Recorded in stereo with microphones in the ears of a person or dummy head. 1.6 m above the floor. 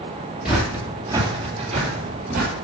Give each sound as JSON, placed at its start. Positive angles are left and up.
{"t": 0.5, "sound": "footsteps", "side_deg": -5, "distance_m": 1.8}